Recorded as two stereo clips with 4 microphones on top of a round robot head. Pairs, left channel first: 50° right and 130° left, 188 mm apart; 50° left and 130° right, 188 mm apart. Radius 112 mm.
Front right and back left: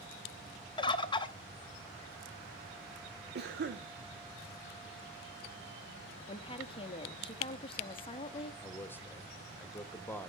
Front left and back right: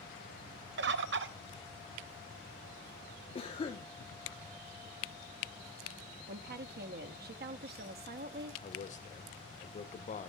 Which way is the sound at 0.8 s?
115° right.